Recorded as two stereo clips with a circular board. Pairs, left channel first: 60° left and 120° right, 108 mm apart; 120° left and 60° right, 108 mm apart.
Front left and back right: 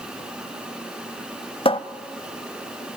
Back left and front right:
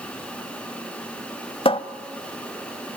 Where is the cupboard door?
90° left, 0.8 m.